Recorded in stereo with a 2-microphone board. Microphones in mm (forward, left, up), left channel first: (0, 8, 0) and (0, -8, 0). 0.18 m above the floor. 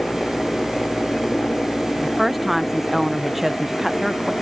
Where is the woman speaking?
15° right (ahead or behind).